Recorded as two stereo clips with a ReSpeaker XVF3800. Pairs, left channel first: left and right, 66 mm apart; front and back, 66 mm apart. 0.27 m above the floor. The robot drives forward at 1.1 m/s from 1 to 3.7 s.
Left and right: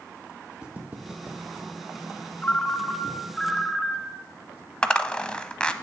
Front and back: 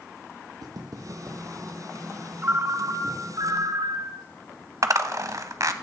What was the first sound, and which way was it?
Footsteps, 165° right.